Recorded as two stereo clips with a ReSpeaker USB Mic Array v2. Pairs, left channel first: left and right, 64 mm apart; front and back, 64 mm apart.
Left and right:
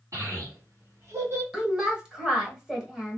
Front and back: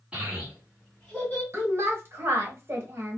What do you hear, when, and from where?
0.1 s a child speaking: 105° right, 1.8 m; by 1.4 s 50° right, 1.5 m
1.5 s a woman speaking: 165° right, 1.2 m